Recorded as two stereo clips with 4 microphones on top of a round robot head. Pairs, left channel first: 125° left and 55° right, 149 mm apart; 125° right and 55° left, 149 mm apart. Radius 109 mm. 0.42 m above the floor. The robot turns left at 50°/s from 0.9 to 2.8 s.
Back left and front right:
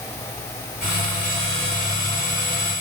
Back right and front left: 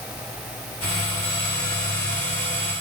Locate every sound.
Only background noise.